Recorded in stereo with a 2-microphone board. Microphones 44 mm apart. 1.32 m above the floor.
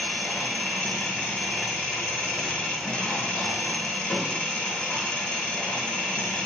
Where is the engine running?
20° left (ahead or behind), 1.1 m.